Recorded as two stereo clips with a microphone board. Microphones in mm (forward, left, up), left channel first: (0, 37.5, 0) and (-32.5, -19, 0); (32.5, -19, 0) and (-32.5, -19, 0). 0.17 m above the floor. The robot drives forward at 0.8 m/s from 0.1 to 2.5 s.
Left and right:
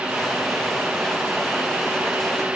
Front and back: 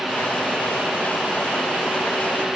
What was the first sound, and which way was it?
Only background noise.